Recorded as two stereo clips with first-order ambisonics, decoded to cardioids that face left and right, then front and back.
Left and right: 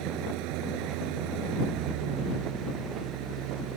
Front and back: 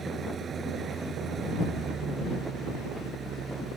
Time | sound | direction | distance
0.0 | an engine running | 115° right | ?